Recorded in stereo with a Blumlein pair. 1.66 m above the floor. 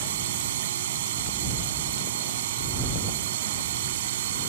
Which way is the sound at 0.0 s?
55° right.